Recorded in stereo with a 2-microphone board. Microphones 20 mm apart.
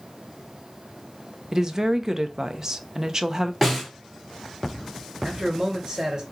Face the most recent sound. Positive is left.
turn(degrees=-35)  # may be behind; listen again after turning